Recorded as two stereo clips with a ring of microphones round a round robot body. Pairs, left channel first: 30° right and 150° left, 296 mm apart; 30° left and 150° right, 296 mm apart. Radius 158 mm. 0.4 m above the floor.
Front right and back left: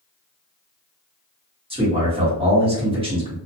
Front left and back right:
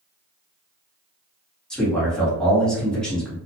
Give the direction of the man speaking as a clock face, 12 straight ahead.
8 o'clock.